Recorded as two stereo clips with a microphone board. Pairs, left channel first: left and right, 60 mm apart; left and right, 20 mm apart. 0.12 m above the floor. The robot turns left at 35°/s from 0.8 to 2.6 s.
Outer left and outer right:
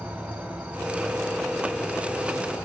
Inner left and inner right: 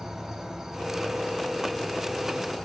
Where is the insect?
160° right, 0.9 m; by 2.7 s 140° left, 0.9 m.